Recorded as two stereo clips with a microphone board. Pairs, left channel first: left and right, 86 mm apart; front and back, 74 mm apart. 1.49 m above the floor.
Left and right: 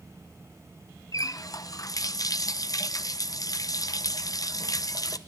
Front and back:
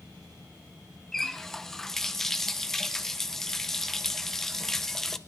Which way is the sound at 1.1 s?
80° left.